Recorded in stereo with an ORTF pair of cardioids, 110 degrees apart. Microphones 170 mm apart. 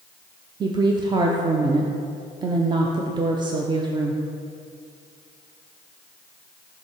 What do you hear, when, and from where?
0.6 s a woman speaking: 25° right, 0.5 m